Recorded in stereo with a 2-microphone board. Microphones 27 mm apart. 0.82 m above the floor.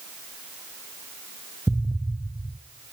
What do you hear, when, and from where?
1.7 s an explosion: 45° right (ahead or behind), 0.8 m